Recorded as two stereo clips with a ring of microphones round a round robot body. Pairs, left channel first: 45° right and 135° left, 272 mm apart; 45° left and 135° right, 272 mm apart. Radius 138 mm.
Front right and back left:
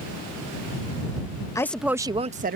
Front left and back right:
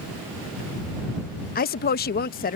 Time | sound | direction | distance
1.6 | a woman speaking | 25° left | ?